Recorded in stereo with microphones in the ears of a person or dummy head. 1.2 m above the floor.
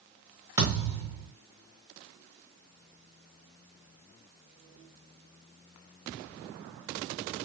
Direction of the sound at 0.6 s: 20° right (ahead or behind).